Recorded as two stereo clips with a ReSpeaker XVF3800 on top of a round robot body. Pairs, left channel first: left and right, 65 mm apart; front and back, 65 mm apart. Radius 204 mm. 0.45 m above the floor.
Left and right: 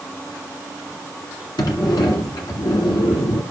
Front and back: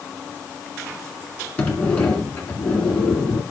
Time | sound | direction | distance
1.6 | a sliding door | 75° left | 1.5 m